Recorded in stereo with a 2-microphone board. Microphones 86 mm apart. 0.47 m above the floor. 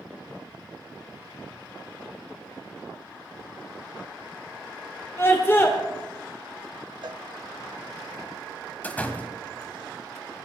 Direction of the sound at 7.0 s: 60° right (ahead or behind).